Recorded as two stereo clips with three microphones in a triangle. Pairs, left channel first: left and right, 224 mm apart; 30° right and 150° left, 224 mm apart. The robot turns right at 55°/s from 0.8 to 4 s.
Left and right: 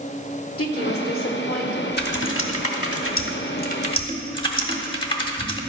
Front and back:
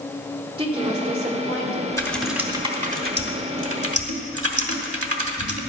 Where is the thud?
I don't hear a thud.